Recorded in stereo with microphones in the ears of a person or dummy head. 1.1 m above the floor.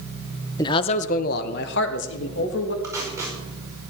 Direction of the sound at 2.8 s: 10° right (ahead or behind).